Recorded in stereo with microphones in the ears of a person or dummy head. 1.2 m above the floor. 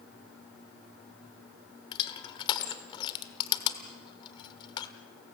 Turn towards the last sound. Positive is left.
turn(degrees=25)  # may be behind; listen again after turning